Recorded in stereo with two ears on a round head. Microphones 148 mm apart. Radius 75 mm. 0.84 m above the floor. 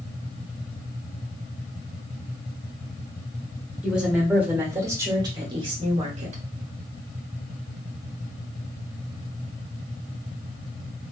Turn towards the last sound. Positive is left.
turn(degrees=-45)  # may be behind; listen again after turning